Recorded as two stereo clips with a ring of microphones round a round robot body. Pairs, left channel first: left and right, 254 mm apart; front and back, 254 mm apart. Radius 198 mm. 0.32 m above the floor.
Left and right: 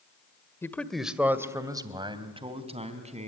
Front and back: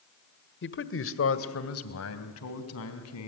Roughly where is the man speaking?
Ahead.